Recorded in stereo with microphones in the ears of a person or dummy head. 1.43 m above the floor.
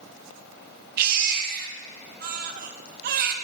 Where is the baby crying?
55° right (ahead or behind), 1.2 m.